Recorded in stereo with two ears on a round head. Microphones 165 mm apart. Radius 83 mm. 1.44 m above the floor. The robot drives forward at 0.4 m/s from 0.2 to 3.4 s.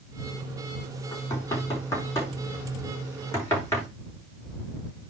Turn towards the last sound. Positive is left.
turn(degrees=15)  # may be behind; listen again after turning